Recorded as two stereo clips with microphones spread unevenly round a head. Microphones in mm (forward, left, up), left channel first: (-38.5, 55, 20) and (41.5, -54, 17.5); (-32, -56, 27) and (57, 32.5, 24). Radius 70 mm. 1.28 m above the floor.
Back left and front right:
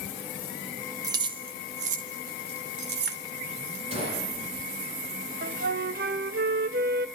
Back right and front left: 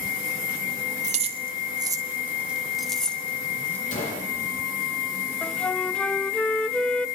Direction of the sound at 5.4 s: 50° right.